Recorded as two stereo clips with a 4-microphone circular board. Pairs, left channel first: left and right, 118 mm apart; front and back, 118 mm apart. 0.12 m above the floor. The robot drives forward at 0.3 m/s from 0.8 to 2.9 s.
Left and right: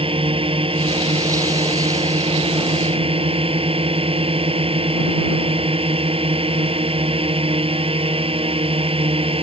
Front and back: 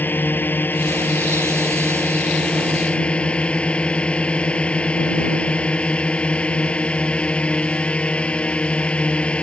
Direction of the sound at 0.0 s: 70° right.